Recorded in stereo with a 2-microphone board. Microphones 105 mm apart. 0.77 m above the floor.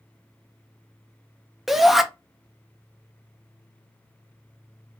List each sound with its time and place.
1.7 s a shout: centre (ahead or behind), 0.5 m